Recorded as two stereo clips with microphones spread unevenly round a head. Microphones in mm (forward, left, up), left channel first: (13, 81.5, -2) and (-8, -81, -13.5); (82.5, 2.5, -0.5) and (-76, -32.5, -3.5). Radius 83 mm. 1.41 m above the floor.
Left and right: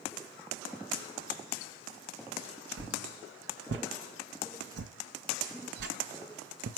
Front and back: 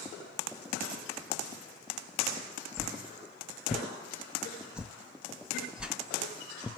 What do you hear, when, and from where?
2.8 s a whoosh: 85° right, 0.6 m